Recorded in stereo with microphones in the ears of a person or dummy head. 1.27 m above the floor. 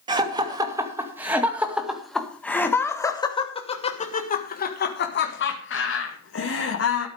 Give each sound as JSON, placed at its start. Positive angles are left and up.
{"t": 0.1, "sound": "laughter", "side_deg": -25, "distance_m": 2.5}